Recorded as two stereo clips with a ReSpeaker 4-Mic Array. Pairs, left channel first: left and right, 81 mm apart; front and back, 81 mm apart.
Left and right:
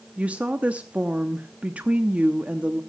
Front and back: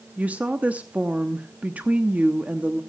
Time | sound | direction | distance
0.2 | a woman speaking | 135° right | 0.7 m